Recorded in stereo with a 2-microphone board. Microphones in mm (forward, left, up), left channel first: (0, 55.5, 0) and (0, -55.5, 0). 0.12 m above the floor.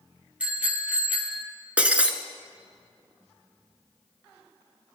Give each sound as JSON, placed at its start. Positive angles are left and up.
{"t": 0.4, "sound": "a bicycle bell", "side_deg": -10, "distance_m": 2.0}
{"t": 1.8, "sound": "breaking glass", "side_deg": -10, "distance_m": 1.0}